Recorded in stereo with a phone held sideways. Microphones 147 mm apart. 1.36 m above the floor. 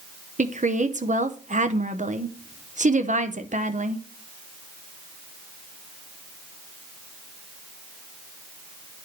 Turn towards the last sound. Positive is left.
turn(degrees=-60)  # may be behind; listen again after turning